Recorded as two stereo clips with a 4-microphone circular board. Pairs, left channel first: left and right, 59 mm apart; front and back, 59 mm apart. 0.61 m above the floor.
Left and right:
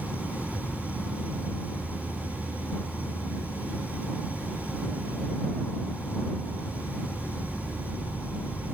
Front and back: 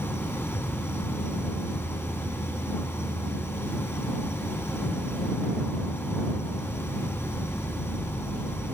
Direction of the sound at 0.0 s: 40° left.